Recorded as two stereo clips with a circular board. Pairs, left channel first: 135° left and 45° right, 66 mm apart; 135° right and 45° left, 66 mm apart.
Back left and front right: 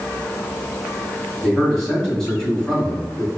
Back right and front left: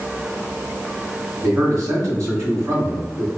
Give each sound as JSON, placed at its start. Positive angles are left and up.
{"t": 1.4, "sound": "a man speaking", "azimuth_deg": 60, "distance_m": 1.7}